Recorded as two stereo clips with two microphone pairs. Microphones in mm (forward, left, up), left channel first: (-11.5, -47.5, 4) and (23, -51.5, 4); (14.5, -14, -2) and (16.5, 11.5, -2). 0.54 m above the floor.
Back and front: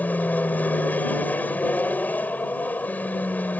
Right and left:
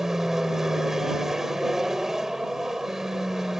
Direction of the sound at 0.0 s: 155° left.